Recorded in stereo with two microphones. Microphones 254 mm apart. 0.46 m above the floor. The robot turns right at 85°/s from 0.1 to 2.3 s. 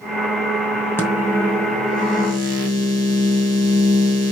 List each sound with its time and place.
1.0 s a microwave: 170° left, 2.5 m; by 4.3 s 80° right, 2.5 m